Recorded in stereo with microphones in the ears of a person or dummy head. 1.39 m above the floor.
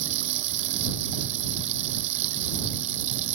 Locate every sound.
0.0 s running water: 40° right (ahead or behind)